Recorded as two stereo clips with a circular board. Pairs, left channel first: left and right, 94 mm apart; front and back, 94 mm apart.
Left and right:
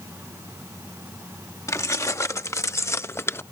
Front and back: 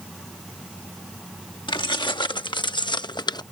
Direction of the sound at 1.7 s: 35° left.